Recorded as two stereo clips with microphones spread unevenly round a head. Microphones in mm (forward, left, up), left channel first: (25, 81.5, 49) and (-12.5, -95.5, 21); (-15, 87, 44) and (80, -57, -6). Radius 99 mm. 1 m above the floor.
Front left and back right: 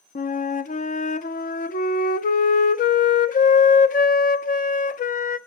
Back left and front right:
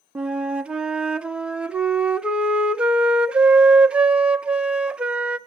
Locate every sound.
0.1 s a flute: 30° left, 0.8 m